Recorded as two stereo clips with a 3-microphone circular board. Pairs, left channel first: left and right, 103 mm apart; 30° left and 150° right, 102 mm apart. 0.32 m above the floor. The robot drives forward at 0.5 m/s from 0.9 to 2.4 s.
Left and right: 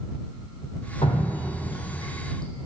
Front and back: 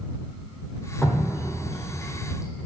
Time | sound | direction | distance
1.0 | dripping | 115° left | 2.5 m